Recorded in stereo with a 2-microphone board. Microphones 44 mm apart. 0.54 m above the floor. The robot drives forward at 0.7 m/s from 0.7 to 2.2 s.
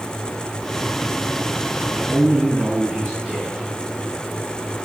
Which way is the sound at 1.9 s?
10° right (ahead or behind).